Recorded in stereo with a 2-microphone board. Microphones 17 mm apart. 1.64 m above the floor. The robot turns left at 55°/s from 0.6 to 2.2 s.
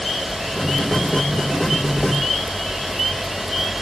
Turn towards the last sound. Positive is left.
No sound to turn to.